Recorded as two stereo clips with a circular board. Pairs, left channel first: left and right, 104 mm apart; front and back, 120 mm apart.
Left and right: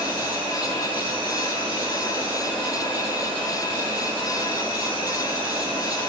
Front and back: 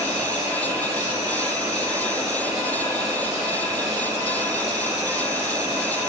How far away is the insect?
About 5.5 m.